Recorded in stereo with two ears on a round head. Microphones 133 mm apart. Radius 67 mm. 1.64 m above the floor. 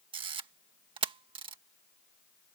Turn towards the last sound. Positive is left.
turn(degrees=-35)  # may be behind; listen again after turning